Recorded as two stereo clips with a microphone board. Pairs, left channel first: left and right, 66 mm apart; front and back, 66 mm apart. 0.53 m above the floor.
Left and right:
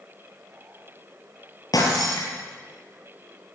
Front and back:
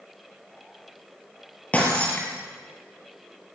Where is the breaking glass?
70° left, 5 m.